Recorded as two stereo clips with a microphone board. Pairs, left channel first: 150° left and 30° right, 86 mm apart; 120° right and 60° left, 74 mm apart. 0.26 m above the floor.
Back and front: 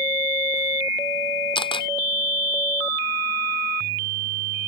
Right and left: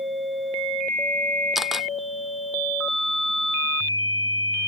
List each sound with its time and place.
1.6 s a camera shutter: 145° left